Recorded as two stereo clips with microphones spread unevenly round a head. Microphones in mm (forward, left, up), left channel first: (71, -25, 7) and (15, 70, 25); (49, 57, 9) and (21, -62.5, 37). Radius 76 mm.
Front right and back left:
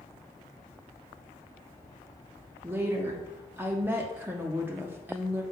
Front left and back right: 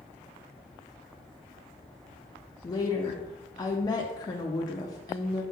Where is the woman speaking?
45° left, 0.5 m.